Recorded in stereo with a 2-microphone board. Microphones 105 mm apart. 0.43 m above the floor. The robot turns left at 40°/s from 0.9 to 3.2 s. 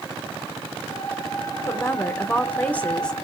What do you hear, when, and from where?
1.7 s a woman speaking: 25° left (ahead or behind), 0.8 m; by 3.1 s 10° left (ahead or behind), 0.8 m